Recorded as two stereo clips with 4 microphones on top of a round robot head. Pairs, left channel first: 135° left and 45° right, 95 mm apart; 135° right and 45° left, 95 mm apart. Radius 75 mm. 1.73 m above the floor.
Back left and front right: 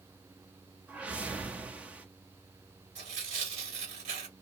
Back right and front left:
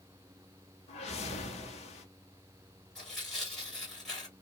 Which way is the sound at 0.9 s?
120° right.